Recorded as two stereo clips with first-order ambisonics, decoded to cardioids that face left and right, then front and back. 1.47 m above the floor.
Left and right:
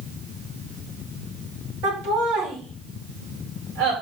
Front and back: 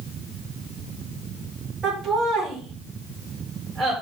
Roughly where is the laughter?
Right.